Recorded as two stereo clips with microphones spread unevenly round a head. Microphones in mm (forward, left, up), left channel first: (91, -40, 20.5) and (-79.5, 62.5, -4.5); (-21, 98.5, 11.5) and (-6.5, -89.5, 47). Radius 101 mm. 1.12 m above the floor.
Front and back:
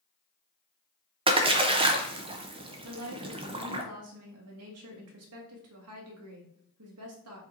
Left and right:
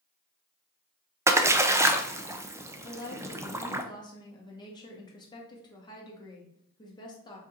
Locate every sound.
1.3 s a splash: 170° right, 0.6 m
2.8 s a woman speaking: 165° left, 1.4 m